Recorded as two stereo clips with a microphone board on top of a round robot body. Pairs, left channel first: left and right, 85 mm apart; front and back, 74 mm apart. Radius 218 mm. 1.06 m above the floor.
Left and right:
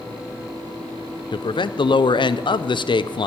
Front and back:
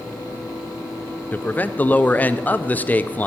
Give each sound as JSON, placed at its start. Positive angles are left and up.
{"t": 1.3, "sound": "a man speaking", "azimuth_deg": 70, "distance_m": 0.6}